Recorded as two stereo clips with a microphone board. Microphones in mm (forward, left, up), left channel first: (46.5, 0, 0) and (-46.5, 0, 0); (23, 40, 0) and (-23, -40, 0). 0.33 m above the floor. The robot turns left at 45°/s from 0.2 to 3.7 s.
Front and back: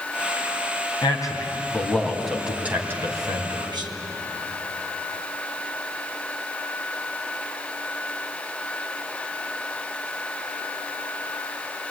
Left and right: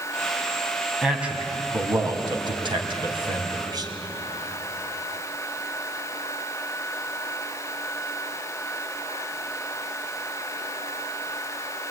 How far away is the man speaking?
About 3 m.